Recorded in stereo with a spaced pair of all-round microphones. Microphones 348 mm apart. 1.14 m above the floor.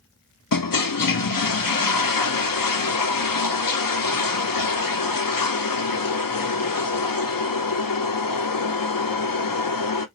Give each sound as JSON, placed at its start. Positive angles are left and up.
{"t": 0.5, "sound": "a toilet flushing", "side_deg": 70, "distance_m": 0.6}